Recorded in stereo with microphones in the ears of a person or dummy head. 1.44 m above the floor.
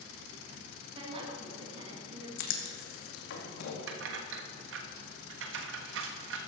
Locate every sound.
0.9 s a woman speaking: 30° right (ahead or behind), 2.5 m
2.4 s writing: 65° left (ahead or behind), 2 m
3.9 s keys jangling: 70° right (ahead or behind), 1.3 m